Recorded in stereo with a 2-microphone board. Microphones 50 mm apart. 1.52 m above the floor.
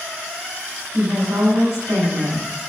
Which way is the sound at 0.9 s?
80° right.